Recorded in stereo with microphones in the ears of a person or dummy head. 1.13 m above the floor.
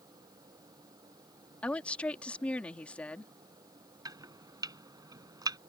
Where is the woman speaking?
5° left (ahead or behind).